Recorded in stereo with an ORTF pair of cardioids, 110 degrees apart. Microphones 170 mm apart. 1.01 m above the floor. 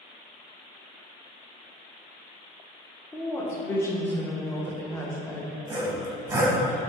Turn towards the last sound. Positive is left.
turn(degrees=-15)